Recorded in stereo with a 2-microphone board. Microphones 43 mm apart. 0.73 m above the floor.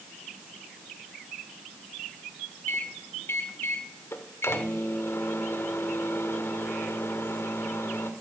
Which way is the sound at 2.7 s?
70° left (ahead or behind).